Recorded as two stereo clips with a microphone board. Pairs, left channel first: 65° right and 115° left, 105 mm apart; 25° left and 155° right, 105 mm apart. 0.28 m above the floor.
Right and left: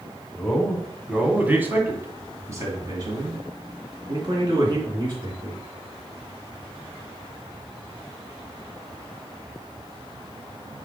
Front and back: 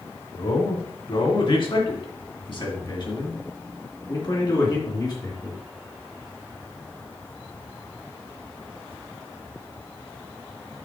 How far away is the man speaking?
About 1.7 m.